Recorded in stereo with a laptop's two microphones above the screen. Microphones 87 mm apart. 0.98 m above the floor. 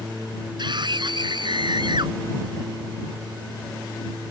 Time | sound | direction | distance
0.6 | a scream | 60° right (ahead or behind) | ?